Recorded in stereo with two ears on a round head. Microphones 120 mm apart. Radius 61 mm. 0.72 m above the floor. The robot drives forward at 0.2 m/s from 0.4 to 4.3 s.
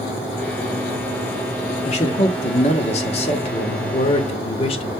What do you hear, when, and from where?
1.9 s a man speaking: 50° left (ahead or behind), 1.2 m; by 4.9 s 45° left (ahead or behind), 1.3 m